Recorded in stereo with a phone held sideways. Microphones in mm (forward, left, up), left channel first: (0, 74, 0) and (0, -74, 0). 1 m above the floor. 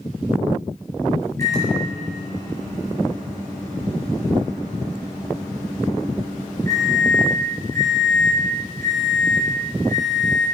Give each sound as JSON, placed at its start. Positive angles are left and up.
{"t": 1.4, "sound": "a microwave", "side_deg": 20, "distance_m": 4.0}